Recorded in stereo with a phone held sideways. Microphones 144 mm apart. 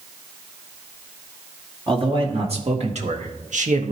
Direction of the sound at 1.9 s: 40° right (ahead or behind).